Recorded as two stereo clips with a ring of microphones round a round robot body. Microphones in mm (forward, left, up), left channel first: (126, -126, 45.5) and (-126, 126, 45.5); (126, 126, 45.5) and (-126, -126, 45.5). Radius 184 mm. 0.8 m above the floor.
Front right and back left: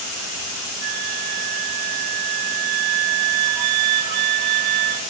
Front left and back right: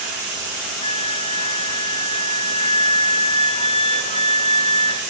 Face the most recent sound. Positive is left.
turn(degrees=120)